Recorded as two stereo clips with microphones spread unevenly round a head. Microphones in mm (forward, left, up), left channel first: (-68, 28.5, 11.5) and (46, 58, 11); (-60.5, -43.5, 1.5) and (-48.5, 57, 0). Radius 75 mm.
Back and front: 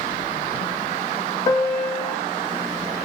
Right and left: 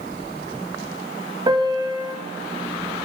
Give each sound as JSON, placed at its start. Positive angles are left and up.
{"t": 1.5, "sound": "a piano", "azimuth_deg": 135, "distance_m": 0.9}